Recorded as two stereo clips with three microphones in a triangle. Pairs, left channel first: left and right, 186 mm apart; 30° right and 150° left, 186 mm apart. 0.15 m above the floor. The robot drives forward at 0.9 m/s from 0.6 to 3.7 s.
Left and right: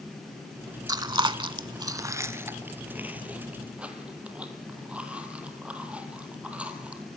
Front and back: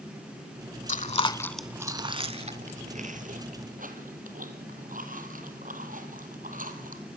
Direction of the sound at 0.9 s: 30° right.